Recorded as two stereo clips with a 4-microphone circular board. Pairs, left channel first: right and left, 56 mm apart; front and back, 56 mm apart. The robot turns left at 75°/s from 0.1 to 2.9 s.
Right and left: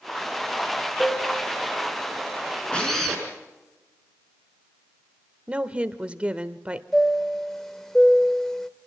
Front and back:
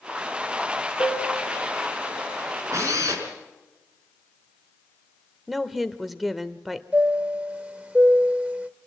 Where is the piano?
25° right, 5 m; by 2.2 s 115° right, 5 m.